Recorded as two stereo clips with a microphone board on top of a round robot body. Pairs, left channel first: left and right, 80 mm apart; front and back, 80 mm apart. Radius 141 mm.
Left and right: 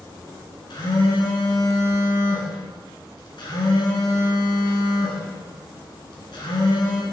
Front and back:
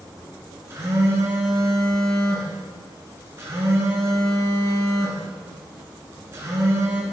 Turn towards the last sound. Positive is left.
turn(degrees=125)